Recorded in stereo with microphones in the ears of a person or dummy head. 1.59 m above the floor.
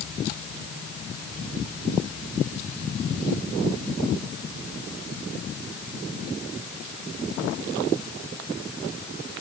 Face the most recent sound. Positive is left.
No sound to turn to.